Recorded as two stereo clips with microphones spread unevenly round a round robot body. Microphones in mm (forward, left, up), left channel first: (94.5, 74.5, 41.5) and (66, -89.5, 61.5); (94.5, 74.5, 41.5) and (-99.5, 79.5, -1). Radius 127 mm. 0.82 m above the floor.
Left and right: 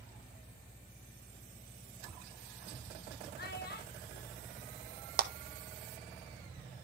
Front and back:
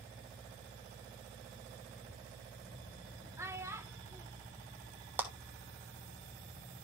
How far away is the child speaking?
About 1.6 m.